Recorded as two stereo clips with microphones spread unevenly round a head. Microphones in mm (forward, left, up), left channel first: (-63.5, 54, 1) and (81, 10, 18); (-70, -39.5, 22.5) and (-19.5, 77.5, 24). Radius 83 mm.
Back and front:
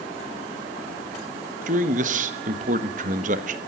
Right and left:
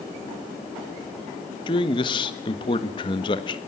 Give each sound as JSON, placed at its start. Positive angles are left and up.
{"t": 1.7, "sound": "a man speaking", "azimuth_deg": -60, "distance_m": 1.4}